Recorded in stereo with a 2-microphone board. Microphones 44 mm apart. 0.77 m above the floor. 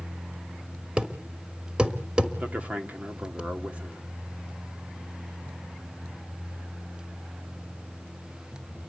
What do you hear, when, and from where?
1.0 s a thud: 25° right (ahead or behind), 1.4 m
2.4 s a man speaking: 35° right (ahead or behind), 2 m